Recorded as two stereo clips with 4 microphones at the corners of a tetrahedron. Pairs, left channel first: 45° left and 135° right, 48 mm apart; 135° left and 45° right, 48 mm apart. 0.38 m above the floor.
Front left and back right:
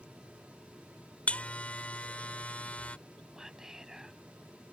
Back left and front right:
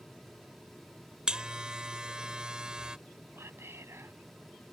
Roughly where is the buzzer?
Ahead.